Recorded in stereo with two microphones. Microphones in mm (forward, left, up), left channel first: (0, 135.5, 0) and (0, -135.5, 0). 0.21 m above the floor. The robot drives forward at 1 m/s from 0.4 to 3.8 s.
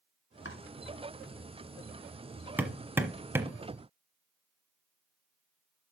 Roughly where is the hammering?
Centre.